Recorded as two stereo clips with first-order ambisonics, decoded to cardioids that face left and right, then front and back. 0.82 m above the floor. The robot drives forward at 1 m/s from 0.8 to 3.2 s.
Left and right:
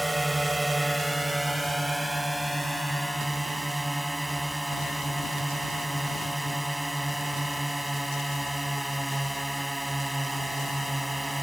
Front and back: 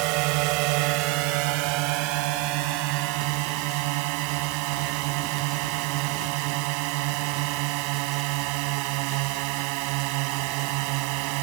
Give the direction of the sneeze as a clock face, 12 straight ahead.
I don't hear a sneeze.